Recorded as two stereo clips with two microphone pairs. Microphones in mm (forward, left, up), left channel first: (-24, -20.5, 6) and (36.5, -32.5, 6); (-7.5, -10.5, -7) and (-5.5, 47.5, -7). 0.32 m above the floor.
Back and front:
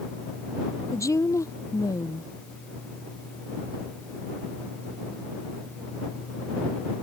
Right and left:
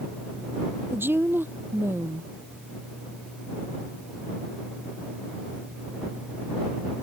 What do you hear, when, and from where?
0.9 s a woman speaking: 140° left